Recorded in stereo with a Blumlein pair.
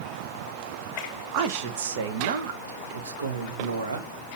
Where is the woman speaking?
40° right, 1.2 m; by 4.1 s 75° right, 2.5 m.